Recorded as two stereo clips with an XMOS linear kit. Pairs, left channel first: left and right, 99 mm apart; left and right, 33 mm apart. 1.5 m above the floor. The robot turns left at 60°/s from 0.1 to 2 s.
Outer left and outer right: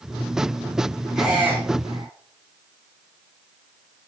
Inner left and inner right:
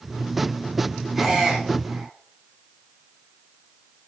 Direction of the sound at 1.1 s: Centre (ahead or behind).